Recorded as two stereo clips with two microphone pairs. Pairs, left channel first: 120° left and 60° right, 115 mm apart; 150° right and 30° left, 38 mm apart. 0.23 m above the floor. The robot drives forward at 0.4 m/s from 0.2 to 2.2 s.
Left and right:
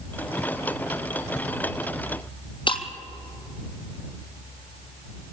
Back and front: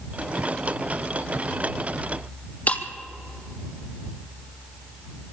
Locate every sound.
2.7 s breaking glass: 160° left, 1.4 m